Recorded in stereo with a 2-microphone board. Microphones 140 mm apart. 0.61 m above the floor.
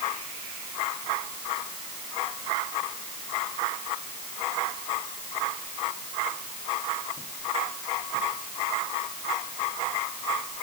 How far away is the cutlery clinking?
I don't hear cutlery clinking.